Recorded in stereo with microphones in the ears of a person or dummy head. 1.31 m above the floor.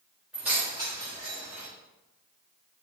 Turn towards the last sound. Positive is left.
turn(degrees=-55)  # may be behind; listen again after turning